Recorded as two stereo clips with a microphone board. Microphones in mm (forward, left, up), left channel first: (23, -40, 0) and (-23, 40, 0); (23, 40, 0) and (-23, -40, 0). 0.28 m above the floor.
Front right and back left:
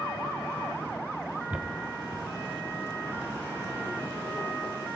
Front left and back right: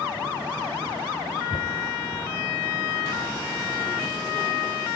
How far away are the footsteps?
About 1.2 m.